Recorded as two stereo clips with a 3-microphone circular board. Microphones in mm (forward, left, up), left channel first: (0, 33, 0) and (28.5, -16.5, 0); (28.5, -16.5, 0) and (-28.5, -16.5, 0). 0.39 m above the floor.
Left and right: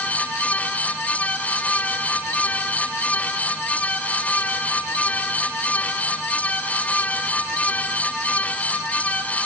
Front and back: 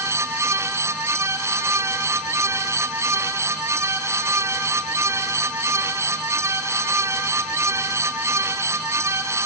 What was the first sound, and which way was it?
Only background noise.